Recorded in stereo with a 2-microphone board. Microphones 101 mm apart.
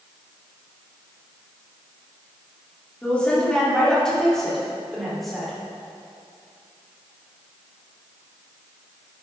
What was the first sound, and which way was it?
A woman speaking, 10° left (ahead or behind).